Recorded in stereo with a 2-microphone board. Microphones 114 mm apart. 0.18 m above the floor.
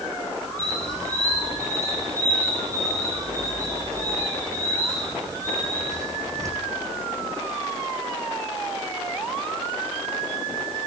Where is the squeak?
30° right (ahead or behind), 2.5 m.